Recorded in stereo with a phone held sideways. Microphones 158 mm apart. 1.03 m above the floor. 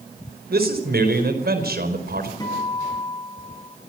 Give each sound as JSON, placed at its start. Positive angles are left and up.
{"t": 0.5, "sound": "a man speaking", "side_deg": -80, "distance_m": 4.5}
{"t": 2.4, "sound": "a guitar", "side_deg": 25, "distance_m": 9.0}